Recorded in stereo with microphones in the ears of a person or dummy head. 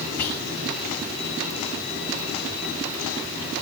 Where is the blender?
I don't hear a blender.